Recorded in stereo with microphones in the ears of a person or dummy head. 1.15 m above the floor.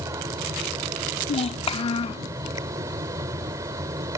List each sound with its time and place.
0.0 s a fan: 20° right (ahead or behind)
1.3 s a child speaking: 25° left (ahead or behind)